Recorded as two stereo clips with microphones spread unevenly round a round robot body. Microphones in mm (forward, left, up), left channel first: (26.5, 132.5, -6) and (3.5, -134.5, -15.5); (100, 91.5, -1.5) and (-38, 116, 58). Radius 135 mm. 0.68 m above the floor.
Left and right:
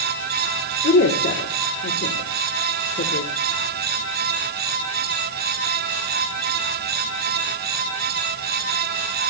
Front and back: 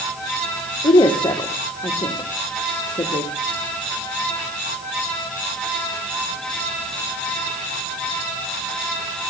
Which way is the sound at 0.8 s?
30° left.